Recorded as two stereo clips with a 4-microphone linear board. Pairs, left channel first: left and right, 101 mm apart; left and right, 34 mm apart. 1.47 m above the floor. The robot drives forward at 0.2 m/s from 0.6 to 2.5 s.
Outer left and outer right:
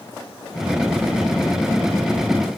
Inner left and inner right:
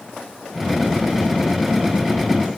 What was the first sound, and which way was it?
Only background noise.